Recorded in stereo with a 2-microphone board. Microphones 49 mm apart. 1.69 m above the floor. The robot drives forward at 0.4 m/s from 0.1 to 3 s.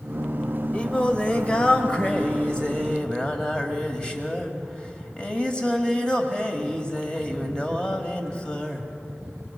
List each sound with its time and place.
0.7 s singing: 25° left (ahead or behind), 1.6 m; by 8.9 s 20° left (ahead or behind), 2 m